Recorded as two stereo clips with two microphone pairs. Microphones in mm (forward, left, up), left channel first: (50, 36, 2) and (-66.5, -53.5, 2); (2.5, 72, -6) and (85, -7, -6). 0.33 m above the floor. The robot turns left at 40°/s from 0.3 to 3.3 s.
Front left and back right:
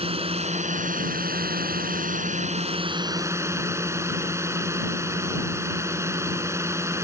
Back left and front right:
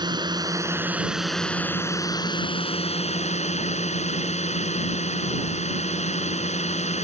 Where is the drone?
95° right; by 7.0 s 145° left.